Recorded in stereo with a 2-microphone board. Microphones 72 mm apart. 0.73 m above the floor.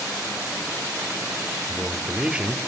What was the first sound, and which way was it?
A man speaking, 15° right (ahead or behind).